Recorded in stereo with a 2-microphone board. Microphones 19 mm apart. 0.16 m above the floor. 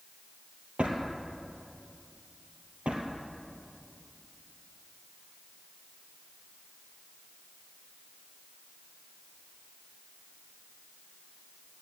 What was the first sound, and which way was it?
A drawer, 65° right (ahead or behind).